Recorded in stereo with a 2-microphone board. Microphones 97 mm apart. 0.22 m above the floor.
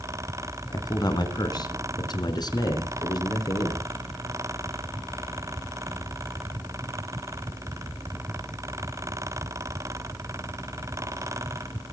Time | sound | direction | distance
0.7 | a man speaking | 45° left (ahead or behind) | 2.5 m